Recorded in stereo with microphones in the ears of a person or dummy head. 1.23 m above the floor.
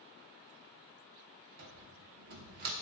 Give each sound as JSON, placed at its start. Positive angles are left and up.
{"t": 1.6, "sound": "a cupboard door", "side_deg": -45, "distance_m": 1.0}